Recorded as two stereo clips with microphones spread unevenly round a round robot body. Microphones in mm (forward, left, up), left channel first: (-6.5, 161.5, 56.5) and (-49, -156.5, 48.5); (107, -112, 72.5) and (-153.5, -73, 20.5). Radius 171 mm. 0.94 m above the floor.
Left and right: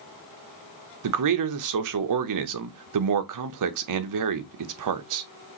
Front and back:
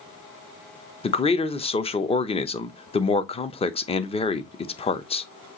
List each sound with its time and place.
1.0 s a man speaking: 85° right, 0.8 m